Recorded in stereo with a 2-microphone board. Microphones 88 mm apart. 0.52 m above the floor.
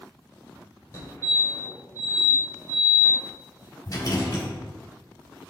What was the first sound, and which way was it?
A fire alarm, 30° left (ahead or behind).